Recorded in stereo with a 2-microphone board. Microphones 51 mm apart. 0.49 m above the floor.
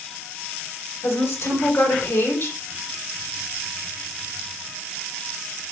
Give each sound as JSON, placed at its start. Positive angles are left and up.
{"t": 1.0, "sound": "a woman speaking", "side_deg": 65, "distance_m": 2.5}